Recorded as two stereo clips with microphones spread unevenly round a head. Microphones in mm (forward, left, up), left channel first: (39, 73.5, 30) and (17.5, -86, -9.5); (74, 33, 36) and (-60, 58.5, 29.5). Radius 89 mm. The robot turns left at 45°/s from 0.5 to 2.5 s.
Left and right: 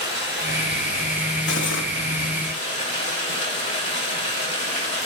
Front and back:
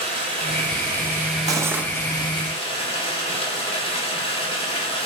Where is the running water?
125° left, 3.5 m; by 5.1 s 35° left, 3.5 m.